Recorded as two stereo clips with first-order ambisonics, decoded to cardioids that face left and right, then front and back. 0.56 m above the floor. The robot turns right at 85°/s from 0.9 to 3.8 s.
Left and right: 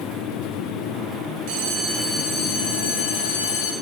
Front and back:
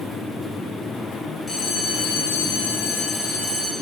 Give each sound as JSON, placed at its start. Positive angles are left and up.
{"t": 1.5, "sound": "a bell", "azimuth_deg": -75, "distance_m": 0.6}